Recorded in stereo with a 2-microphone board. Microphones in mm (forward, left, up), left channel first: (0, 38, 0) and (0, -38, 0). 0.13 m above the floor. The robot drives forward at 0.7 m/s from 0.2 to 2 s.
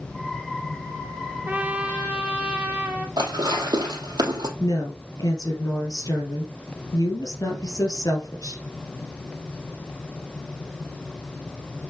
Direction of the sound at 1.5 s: 25° right (ahead or behind).